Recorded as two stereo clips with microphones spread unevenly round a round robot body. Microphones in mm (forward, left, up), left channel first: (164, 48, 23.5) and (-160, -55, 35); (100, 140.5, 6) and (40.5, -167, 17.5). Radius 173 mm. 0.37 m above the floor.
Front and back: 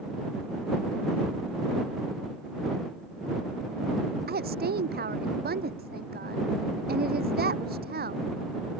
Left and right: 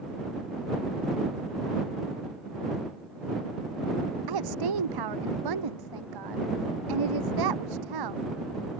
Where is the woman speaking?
100° right.